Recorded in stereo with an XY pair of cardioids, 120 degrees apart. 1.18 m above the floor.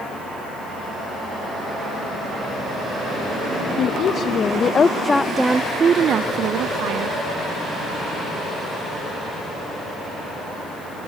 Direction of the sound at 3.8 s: 55° left.